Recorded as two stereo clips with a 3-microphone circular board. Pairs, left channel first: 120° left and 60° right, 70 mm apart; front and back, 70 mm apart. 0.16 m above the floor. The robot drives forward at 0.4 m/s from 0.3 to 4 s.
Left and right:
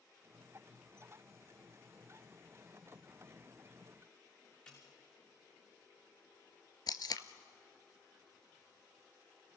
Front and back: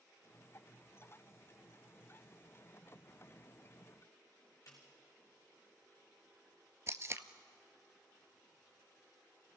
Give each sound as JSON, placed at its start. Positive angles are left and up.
{"t": 4.7, "sound": "a snare drum", "azimuth_deg": 50, "distance_m": 6.0}
{"t": 6.9, "sound": "tape being pulled", "azimuth_deg": 135, "distance_m": 0.8}